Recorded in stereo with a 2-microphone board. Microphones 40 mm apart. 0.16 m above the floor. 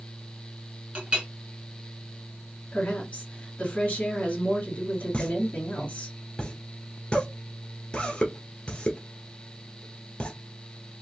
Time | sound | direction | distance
0.9 | a clink | 25° right (ahead or behind) | 1.0 m
2.7 | a woman speaking | 25° left (ahead or behind) | 1.6 m
5.1 | a pop | 25° left (ahead or behind) | 1.1 m